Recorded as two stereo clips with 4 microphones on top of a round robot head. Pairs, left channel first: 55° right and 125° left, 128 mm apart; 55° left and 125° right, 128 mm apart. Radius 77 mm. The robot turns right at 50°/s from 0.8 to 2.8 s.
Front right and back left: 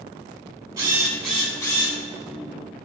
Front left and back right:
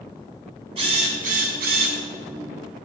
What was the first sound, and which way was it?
A drill, 165° right.